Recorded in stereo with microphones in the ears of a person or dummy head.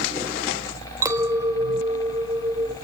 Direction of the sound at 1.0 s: 15° right (ahead or behind).